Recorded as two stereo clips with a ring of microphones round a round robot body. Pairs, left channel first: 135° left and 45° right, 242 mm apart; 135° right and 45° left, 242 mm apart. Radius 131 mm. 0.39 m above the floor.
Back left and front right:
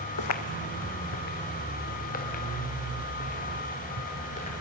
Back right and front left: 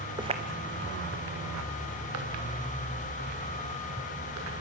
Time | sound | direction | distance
0.2 | footsteps | 120° left | 1.0 m